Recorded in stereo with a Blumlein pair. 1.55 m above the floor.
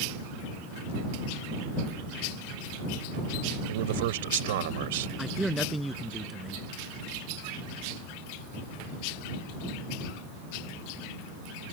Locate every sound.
3.7 s a man speaking: 55° right
5.2 s a man speaking: 5° right